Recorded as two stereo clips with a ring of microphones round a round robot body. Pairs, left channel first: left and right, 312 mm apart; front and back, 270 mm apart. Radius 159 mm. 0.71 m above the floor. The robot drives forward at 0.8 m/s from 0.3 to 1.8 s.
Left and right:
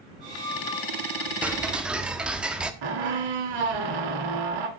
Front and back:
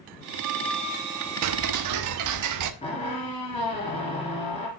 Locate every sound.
1.4 s ticking: 175° right, 0.8 m
2.8 s a squeak: 75° right, 2.5 m